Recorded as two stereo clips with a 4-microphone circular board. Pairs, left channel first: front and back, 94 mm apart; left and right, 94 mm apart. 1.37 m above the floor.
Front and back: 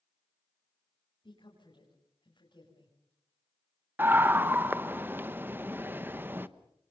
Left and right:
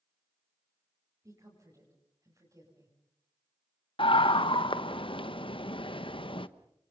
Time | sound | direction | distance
1.2 | a woman speaking | 35° right | 6.5 m
4.0 | a scream | 110° left | 1.1 m